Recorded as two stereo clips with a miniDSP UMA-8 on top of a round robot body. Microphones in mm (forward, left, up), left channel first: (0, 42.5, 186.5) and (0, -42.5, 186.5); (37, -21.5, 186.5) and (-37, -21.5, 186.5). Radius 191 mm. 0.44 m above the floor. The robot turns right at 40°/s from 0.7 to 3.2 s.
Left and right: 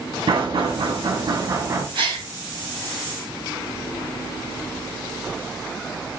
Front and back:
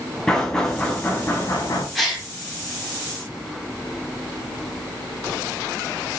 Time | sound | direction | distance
0.3 | knocking | 85° right | 3 m
1.9 | a gasp | 90° right | 3 m